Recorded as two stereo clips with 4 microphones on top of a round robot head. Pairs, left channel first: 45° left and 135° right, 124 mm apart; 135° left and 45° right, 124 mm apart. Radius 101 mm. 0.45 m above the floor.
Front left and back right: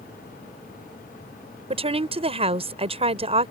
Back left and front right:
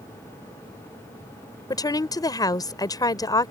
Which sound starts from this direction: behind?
A woman speaking, at 1.7 s.